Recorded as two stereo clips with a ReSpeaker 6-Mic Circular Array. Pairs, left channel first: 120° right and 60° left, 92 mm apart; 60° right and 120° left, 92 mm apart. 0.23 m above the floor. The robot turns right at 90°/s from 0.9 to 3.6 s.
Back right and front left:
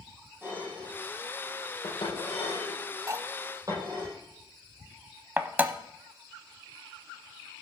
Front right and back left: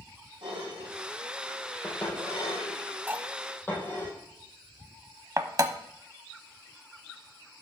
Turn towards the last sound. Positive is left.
turn(degrees=115)